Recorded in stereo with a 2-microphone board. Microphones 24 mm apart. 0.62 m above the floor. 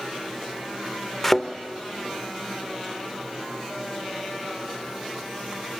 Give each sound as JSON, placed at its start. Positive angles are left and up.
{"t": 1.2, "sound": "a thud", "side_deg": 0, "distance_m": 0.6}